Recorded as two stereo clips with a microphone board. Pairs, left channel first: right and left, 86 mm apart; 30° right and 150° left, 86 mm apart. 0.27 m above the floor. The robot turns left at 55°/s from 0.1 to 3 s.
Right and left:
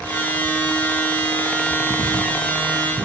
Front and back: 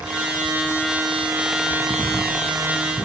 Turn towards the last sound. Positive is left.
turn(degrees=25)